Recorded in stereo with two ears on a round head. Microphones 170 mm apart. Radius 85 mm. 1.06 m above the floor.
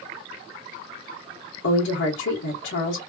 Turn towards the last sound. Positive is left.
turn(degrees=70)  # may be behind; listen again after turning